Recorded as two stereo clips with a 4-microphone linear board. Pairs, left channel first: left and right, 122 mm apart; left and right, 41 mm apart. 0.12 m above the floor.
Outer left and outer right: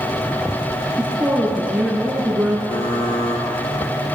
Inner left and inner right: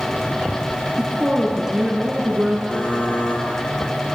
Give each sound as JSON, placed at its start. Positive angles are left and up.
{"t": 1.0, "sound": "a woman speaking", "side_deg": -10, "distance_m": 1.2}
{"t": 2.7, "sound": "typing on a keyboard", "side_deg": 35, "distance_m": 1.4}